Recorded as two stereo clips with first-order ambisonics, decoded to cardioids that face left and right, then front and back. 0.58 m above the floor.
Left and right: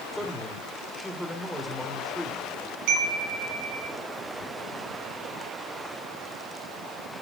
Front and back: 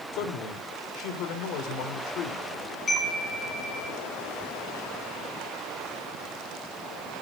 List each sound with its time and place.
0.1 s a man speaking: 5° left, 2.0 m
2.9 s a chime: 70° right, 4.5 m